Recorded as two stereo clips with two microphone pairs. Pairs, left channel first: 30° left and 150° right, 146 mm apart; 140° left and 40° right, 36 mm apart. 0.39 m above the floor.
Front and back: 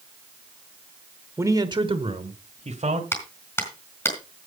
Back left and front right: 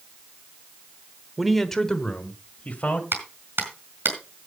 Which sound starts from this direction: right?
A man speaking, at 1.4 s.